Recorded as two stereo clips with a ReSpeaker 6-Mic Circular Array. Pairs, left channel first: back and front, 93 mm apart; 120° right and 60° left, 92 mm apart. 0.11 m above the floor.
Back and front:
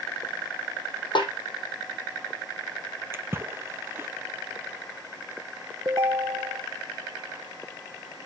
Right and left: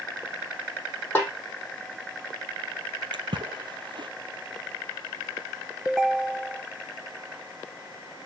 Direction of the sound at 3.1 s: 55° left.